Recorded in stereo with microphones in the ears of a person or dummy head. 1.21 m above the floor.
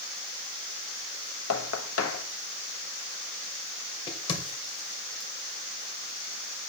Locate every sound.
1.5 s knocking: 80° left, 1.3 m
4.1 s a crack: 25° left (ahead or behind), 2 m